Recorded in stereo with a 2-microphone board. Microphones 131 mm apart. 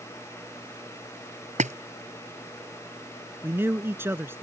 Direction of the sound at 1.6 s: 65° right (ahead or behind).